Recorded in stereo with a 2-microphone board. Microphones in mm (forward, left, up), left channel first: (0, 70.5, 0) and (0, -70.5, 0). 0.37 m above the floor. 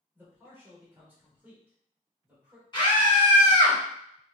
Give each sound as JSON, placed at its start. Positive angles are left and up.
{"t": 0.1, "sound": "a man speaking", "side_deg": -15, "distance_m": 1.3}
{"t": 2.7, "sound": "a scream", "side_deg": 30, "distance_m": 1.6}